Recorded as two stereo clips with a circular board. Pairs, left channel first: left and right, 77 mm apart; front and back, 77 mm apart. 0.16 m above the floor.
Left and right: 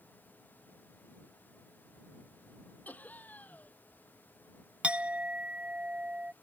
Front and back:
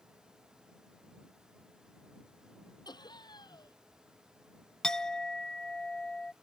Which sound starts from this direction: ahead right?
A clink, at 4.8 s.